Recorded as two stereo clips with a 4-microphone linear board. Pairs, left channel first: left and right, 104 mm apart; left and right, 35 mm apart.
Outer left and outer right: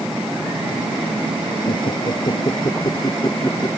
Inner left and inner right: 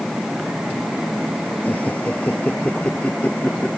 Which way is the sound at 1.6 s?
50° left (ahead or behind).